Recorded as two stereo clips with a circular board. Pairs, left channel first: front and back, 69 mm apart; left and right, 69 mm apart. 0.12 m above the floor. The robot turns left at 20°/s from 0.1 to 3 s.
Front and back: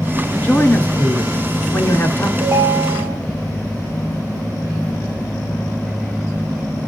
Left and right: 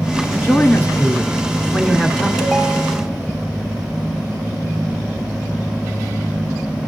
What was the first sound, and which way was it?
A man speaking, 50° left.